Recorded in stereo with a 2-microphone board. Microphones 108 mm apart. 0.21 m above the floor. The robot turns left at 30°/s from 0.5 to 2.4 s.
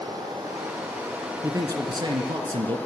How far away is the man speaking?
About 2 m.